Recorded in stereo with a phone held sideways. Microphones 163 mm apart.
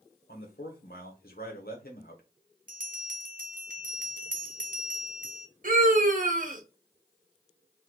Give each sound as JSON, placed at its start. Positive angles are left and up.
{"t": 0.3, "sound": "a man speaking", "side_deg": 70, "distance_m": 1.0}
{"t": 2.7, "sound": "a bell", "side_deg": -60, "distance_m": 0.7}
{"t": 5.6, "sound": "a scream", "side_deg": -55, "distance_m": 0.9}